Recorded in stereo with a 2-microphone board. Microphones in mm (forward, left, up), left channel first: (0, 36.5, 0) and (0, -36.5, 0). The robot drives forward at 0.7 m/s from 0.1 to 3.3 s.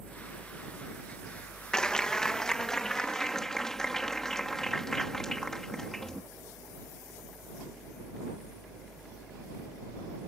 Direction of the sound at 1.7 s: 10° left (ahead or behind).